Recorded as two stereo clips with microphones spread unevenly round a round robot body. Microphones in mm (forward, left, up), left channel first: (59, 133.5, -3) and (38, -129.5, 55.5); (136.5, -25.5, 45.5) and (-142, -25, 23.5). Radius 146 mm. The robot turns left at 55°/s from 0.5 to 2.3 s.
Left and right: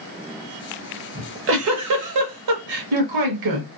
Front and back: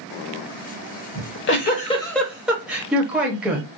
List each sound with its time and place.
1.1 s a giggle: 30° right, 0.9 m; by 3.7 s 95° right, 0.9 m